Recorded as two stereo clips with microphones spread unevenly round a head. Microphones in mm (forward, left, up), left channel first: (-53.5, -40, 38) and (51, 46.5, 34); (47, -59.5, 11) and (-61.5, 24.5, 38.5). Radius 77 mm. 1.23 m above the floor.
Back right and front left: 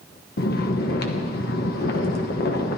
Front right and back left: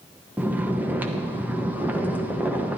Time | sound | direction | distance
0.4 | snoring | 135° right | 1.3 m